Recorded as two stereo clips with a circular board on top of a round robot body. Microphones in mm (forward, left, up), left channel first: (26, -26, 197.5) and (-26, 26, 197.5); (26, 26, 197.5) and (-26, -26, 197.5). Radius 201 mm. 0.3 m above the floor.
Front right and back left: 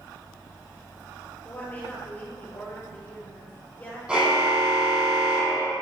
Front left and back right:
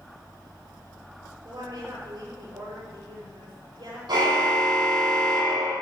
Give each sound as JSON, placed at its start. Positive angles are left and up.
{"t": 1.4, "sound": "a woman speaking", "azimuth_deg": -115, "distance_m": 8.5}
{"t": 4.1, "sound": "a car horn", "azimuth_deg": -150, "distance_m": 9.0}